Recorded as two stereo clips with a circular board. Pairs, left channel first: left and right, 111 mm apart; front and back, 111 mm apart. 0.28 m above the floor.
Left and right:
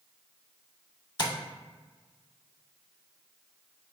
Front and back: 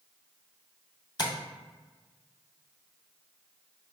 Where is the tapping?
50° left, 0.5 m.